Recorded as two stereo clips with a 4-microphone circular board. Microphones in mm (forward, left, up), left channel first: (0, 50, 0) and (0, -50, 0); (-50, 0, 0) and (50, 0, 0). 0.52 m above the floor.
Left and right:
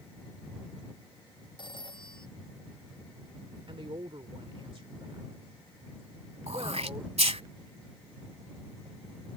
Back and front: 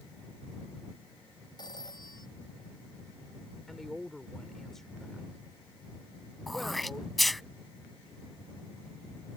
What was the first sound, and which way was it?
A phone ringing, 130° left.